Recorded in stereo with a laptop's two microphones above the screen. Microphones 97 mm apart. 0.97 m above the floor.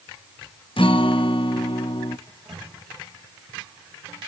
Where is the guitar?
60° left (ahead or behind), 0.6 m.